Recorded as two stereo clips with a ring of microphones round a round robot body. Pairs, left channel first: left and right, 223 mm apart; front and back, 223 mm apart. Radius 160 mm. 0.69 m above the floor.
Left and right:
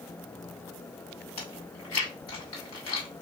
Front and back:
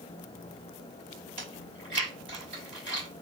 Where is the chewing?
95° left, 2.5 m.